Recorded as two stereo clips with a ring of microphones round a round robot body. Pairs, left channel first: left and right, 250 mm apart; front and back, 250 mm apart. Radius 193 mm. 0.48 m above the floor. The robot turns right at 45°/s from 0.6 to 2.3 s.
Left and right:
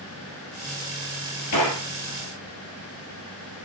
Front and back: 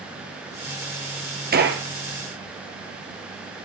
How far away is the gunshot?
About 1.8 m.